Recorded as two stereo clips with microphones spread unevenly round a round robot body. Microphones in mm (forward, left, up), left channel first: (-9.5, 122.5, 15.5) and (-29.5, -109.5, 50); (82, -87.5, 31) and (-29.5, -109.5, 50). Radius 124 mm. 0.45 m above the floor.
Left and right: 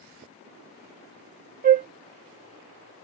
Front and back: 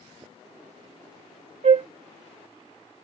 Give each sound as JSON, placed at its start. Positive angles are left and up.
{"t": 1.6, "sound": "a flute", "azimuth_deg": -150}